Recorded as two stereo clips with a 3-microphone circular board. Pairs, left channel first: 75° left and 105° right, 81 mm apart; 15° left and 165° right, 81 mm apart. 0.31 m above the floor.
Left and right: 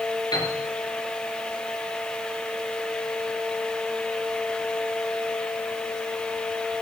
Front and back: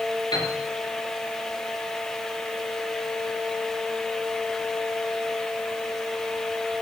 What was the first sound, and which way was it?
A piano, 40° left.